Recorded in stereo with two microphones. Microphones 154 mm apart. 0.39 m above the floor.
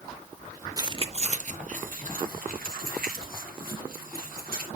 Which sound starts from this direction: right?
Keys jangling, at 0.8 s.